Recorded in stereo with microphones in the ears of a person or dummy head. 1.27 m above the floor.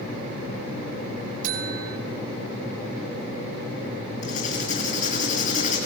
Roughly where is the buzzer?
Right.